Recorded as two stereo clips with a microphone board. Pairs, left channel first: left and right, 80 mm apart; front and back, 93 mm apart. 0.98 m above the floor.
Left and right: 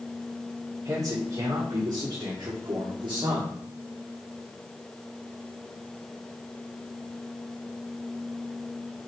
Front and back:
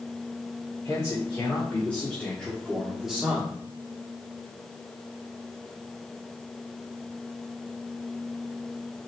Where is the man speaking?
60° right, 2.5 m; by 3.5 s 100° right, 2 m.